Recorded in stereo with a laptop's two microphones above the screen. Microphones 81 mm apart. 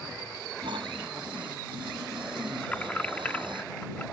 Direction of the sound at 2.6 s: 20° left (ahead or behind).